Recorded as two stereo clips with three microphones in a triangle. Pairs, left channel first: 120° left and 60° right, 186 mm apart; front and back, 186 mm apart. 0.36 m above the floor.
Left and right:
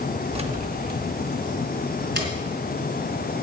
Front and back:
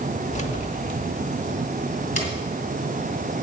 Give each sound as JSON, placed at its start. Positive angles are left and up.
{"t": 0.3, "sound": "keys jangling", "azimuth_deg": -20, "distance_m": 0.7}